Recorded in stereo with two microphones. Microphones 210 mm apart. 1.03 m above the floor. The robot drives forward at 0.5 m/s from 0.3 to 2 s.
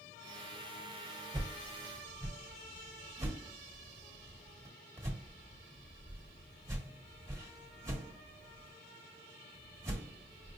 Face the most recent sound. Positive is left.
turn(degrees=-15)  # may be behind; listen again after turning